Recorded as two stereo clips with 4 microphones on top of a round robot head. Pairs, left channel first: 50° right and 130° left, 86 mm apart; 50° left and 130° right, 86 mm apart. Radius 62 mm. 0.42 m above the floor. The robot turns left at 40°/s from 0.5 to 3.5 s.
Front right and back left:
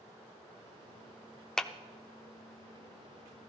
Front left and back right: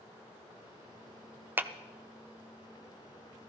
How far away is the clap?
About 0.6 m.